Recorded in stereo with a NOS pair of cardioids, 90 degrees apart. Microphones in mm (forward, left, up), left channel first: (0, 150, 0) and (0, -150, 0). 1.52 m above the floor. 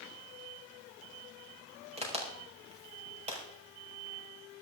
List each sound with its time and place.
2.0 s a crack: 20° right, 5.5 m